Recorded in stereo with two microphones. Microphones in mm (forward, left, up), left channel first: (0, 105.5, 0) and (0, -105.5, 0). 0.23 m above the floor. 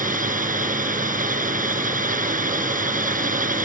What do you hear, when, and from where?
0.0 s a drone: 40° right (ahead or behind)